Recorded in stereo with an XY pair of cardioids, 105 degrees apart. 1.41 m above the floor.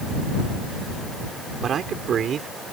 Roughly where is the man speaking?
Ahead right.